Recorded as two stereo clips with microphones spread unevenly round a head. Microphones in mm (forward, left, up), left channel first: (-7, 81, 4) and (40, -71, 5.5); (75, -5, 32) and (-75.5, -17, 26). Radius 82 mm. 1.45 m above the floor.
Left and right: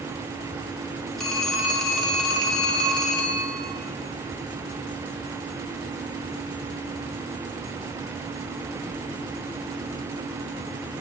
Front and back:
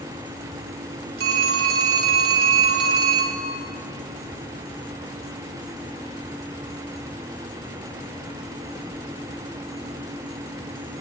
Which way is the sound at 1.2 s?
165° right.